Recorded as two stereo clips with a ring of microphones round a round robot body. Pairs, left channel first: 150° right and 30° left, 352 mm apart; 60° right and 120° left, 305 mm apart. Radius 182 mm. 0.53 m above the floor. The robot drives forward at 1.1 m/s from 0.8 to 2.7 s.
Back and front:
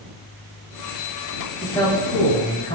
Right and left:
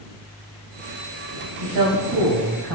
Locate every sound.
1.6 s a man speaking: 130° left, 4 m; by 2.8 s 140° left, 5 m